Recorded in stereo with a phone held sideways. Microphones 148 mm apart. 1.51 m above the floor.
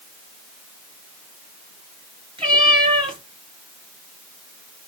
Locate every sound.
2.4 s a cat meowing: 35° right (ahead or behind), 1.8 m